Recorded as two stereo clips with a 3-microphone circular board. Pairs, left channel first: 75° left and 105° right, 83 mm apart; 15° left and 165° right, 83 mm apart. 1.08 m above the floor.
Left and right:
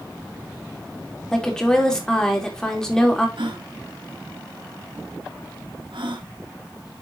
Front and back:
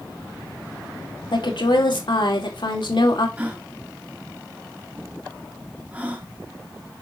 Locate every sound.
1.3 s a woman speaking: 10° right, 2.5 m
3.4 s a gasp: 90° right, 1.5 m